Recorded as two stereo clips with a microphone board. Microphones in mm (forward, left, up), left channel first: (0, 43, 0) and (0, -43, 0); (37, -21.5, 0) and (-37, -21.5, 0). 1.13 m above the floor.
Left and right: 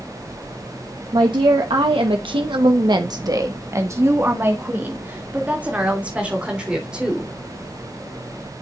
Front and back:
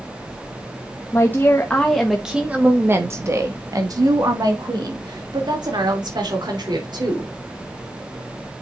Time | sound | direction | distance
1.1 | a woman speaking | 60° right | 1.3 m